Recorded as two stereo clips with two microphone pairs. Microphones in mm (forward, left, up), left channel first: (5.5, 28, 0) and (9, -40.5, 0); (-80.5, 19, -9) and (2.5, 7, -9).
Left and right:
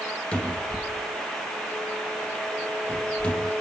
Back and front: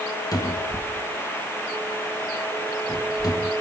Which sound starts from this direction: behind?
A cupboard door, at 0.3 s.